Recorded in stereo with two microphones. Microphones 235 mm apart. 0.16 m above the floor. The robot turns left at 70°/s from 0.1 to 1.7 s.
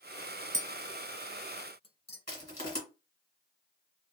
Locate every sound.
0.5 s tapping: 30° right (ahead or behind), 0.6 m; by 2.2 s 25° left (ahead or behind), 0.6 m
2.3 s crushing: 35° left (ahead or behind), 2 m